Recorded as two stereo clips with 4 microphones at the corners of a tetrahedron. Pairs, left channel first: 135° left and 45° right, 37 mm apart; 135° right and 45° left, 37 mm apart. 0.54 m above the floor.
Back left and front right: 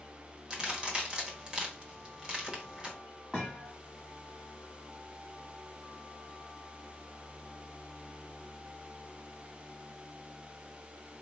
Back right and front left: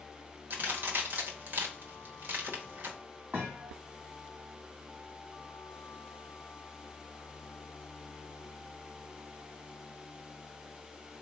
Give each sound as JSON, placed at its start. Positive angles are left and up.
{"t": 0.5, "sound": "a crack", "azimuth_deg": 20, "distance_m": 1.3}
{"t": 3.3, "sound": "a thud", "azimuth_deg": 25, "distance_m": 1.6}